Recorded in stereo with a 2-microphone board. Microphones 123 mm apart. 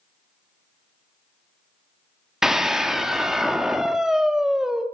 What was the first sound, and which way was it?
A scream, 5° right (ahead or behind).